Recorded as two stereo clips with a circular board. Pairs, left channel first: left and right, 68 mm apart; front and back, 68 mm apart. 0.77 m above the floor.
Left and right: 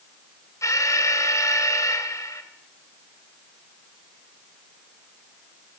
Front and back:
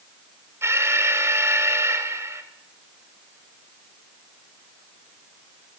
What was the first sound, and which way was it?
An alarm, 130° left.